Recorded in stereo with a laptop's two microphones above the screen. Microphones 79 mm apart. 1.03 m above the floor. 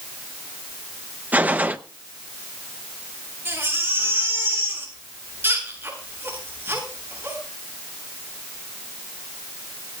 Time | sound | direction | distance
1.3 | a gunshot | 25° right (ahead or behind) | 0.8 m
3.5 | a baby crying | 30° right (ahead or behind) | 8.5 m